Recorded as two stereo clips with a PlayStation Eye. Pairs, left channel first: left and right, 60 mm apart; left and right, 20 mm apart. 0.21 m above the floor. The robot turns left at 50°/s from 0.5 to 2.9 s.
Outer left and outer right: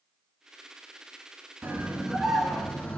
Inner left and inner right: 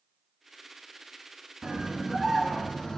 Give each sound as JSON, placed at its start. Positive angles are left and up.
{"t": 1.6, "sound": "a scream", "azimuth_deg": -145, "distance_m": 2.0}